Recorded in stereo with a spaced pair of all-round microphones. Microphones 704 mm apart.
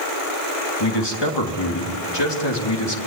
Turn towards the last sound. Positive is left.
turn(degrees=35)  # may be behind; listen again after turning